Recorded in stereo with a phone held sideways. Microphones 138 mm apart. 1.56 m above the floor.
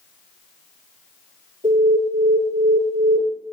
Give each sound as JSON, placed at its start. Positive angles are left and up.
{"t": 1.6, "sound": "an alarm", "side_deg": -65, "distance_m": 6.5}